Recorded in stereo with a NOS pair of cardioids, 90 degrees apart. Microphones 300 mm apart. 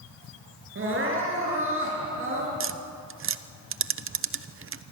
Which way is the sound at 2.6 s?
40° right.